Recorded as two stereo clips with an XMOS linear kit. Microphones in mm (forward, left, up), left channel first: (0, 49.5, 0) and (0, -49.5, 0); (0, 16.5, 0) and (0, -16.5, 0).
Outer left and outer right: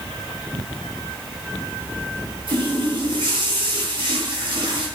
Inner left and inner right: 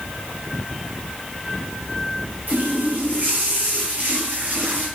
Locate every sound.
2.5 s a running tap: 60° right (ahead or behind), 5 m